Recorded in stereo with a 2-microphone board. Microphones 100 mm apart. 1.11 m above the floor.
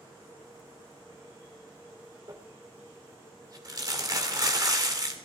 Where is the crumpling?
40° right (ahead or behind), 2.5 m.